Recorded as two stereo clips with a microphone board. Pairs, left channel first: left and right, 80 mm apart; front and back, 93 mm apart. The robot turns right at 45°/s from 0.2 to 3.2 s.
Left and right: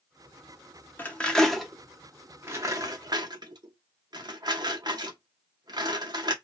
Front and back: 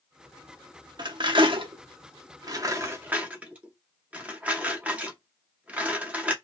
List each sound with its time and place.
1.0 s cutlery clinking: 150° left, 0.6 m; by 6.3 s 110° right, 0.6 m